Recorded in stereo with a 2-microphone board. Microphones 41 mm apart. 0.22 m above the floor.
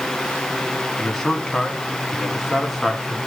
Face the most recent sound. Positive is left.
turn(degrees=-5)  # may be behind; listen again after turning